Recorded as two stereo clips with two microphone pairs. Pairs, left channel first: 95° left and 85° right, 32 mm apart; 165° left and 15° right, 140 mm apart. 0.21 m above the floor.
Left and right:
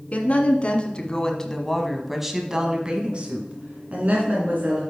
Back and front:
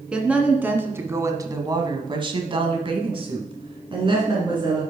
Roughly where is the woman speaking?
Ahead left.